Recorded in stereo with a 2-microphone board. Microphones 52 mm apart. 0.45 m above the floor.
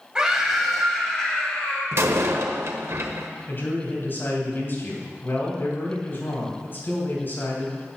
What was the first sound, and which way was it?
A scream, 15° right (ahead or behind).